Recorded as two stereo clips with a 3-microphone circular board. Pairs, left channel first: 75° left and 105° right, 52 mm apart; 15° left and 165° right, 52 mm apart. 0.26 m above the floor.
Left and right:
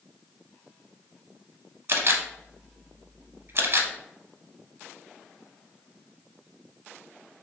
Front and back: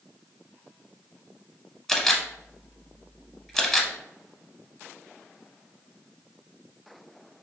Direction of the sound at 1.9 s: 70° right.